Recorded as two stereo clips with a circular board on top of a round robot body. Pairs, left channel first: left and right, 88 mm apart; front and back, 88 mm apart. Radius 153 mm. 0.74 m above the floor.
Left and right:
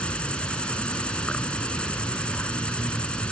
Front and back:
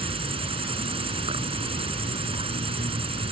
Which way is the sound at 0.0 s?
170° left.